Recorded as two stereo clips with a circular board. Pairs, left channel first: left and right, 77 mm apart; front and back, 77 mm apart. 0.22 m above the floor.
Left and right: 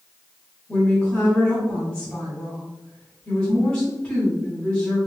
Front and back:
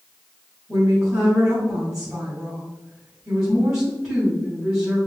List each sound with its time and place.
0.7 s a woman speaking: 115° left, 1.6 m